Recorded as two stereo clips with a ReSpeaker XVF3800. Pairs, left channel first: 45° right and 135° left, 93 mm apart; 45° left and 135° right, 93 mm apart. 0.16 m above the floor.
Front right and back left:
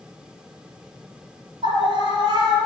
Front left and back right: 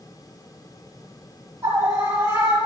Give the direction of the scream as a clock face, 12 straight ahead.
6 o'clock.